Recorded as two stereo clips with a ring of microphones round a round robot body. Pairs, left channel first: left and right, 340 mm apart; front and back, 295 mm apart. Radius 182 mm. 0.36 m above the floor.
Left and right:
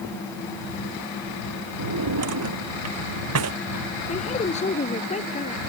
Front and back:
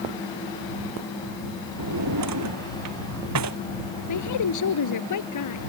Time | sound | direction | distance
1.8 | a drawer | 135° right | ?
4.1 | a woman speaking | 20° left | ?